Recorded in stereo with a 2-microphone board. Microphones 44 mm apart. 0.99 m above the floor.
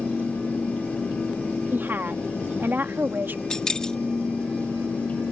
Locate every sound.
1.7 s a woman speaking: 50° right (ahead or behind)
3.5 s keys jangling: 15° left (ahead or behind)